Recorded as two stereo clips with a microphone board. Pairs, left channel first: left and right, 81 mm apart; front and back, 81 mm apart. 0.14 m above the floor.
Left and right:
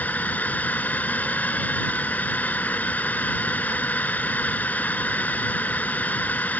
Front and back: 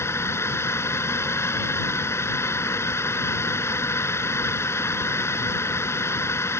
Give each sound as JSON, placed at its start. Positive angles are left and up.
{"t": 0.0, "sound": "a drone", "azimuth_deg": 30}